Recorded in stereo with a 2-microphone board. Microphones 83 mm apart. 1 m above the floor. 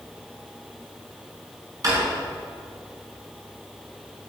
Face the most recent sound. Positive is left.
turn(degrees=-45)  # may be behind; listen again after turning